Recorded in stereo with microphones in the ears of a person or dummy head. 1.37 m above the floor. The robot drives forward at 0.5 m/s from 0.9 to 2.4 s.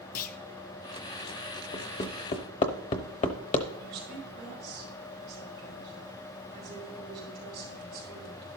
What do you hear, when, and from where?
0.1 s a clunk: 45° left (ahead or behind), 0.6 m
1.7 s hammering: 30° left (ahead or behind), 1.0 m; by 3.7 s 40° left (ahead or behind), 0.8 m
3.8 s a woman speaking: 30° right (ahead or behind), 5 m